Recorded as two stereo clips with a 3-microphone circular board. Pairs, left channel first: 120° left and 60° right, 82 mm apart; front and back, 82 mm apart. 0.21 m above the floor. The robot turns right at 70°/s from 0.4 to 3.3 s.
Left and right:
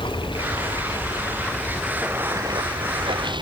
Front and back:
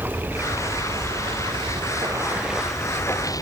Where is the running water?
115° left; by 3.4 s 45° right.